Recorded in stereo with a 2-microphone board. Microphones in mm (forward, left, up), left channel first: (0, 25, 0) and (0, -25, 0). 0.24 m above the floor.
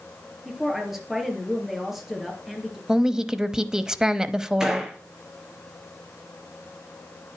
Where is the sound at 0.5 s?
5° right (ahead or behind), 4 m.